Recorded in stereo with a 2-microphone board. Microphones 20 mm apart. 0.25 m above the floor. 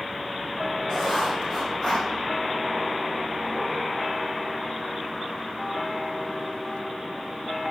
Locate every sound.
0.9 s writing: 10° left (ahead or behind), 3.5 m